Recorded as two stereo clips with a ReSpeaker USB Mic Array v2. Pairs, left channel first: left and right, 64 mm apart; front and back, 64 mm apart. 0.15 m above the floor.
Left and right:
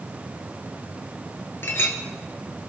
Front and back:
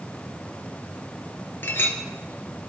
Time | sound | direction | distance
1.6 | a clink | 45° left | 1.5 m